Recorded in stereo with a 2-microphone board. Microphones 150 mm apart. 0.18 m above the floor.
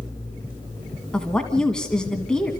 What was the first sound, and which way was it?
A woman speaking, 5° left (ahead or behind).